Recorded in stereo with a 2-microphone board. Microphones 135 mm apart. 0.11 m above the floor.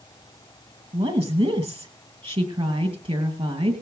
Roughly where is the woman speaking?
Right.